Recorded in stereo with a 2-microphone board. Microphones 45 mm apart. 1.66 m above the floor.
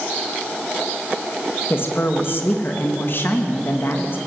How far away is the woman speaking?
About 2.5 m.